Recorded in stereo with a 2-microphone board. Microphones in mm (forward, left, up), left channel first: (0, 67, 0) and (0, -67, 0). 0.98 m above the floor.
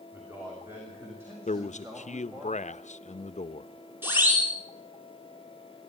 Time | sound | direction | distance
0.1 | a man speaking | 15° right (ahead or behind) | 6.5 m
1.5 | a man speaking | 70° left (ahead or behind) | 0.8 m
4.0 | a siren | 15° right (ahead or behind) | 7 m